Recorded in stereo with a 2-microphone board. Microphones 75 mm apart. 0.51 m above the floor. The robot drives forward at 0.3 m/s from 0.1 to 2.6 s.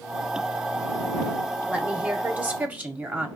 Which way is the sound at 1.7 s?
20° right (ahead or behind).